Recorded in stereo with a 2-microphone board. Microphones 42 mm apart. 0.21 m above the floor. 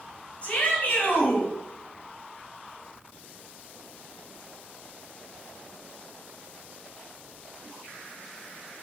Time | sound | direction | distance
0.4 | a shout | 30° left (ahead or behind) | 1.7 m